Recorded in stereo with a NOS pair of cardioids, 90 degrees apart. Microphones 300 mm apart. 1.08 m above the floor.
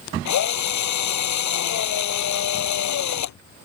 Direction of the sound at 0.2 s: 65° left.